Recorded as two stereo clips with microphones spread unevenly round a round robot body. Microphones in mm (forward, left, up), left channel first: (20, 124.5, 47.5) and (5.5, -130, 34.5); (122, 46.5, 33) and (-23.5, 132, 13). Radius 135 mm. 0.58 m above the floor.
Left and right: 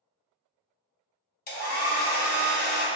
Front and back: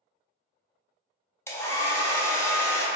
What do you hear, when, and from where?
1.5 s a hair dryer: 50° left, 0.9 m